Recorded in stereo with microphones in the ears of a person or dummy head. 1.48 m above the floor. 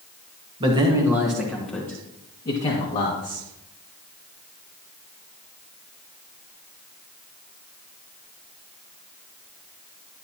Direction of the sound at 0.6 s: 30° right (ahead or behind).